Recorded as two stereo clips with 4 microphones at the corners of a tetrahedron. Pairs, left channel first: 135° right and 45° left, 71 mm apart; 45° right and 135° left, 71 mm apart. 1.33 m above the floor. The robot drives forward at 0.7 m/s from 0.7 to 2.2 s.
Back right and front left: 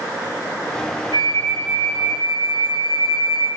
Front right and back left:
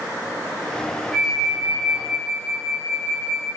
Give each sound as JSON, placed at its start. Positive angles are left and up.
{"t": 1.1, "sound": "a flute", "azimuth_deg": -140, "distance_m": 6.5}